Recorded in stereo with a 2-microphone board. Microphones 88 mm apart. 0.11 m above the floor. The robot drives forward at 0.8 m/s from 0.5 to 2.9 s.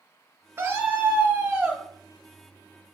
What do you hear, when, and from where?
0.6 s a scream: 25° right (ahead or behind), 1.6 m; by 1.8 s 20° right (ahead or behind), 2.5 m